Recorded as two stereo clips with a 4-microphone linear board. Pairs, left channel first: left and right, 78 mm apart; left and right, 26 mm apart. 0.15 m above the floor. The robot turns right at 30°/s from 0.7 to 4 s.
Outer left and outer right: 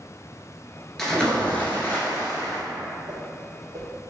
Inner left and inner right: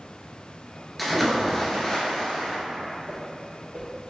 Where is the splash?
5° left, 1.0 m; by 2.6 s 55° left, 1.0 m.